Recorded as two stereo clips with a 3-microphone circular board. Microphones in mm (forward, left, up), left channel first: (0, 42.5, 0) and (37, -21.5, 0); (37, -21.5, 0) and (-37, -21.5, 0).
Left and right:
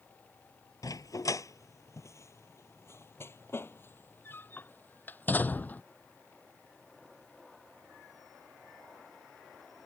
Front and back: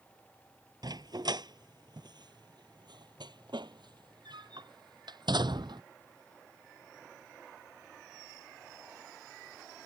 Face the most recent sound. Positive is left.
turn(degrees=-170)